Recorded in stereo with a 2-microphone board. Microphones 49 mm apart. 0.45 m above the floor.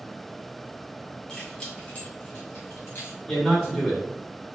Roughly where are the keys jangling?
Centre.